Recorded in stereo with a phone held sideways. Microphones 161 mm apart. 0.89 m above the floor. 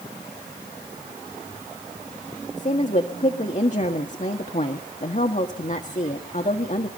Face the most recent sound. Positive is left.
turn(degrees=50)  # may be behind; listen again after turning